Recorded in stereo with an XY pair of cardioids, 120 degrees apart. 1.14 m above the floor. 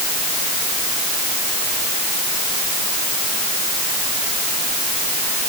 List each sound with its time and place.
Only background noise.